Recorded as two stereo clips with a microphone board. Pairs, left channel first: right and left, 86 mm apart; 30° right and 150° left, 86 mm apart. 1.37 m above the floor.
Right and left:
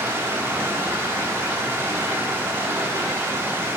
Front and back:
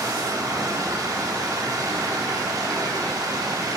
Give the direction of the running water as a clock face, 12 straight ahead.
7 o'clock.